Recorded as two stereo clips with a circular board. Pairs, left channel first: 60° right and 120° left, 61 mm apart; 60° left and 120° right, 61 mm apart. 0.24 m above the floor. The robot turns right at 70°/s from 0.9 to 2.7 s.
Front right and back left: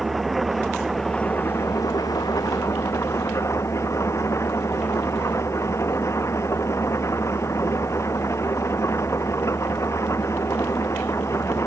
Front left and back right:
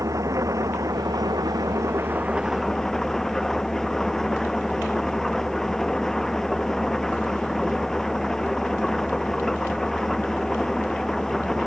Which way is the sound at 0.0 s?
150° right.